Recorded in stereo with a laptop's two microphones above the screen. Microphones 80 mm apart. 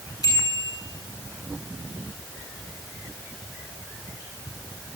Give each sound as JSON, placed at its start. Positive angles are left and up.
{"t": 0.2, "sound": "a bicycle bell", "side_deg": 55, "distance_m": 8.0}